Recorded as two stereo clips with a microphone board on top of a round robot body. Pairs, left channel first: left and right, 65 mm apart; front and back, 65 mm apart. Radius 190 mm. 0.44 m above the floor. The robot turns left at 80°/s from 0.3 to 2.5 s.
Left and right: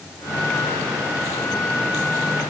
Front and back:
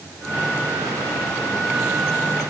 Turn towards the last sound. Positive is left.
No sound to turn to.